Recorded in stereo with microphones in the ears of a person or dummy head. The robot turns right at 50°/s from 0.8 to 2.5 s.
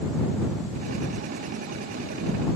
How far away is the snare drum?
I don't hear a snare drum.